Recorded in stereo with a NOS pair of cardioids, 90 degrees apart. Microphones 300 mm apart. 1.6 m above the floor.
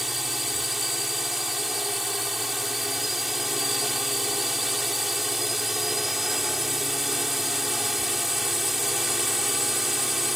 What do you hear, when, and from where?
0.0 s a drone: straight ahead